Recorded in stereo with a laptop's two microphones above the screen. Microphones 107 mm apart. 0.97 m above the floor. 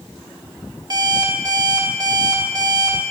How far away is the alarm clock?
About 1.3 m.